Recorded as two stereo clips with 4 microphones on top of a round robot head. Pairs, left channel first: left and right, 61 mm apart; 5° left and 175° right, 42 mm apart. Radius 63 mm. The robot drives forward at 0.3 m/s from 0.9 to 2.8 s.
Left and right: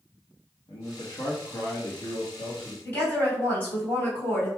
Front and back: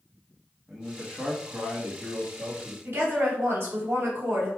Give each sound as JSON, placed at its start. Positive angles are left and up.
{"t": 0.7, "sound": "a man speaking", "azimuth_deg": 105, "distance_m": 1.1}
{"t": 2.9, "sound": "a woman speaking", "azimuth_deg": 145, "distance_m": 2.0}